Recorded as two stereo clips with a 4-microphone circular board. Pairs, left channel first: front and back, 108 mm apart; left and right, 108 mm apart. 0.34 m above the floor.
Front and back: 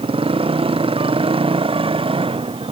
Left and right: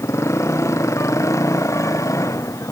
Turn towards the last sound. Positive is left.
turn(degrees=150)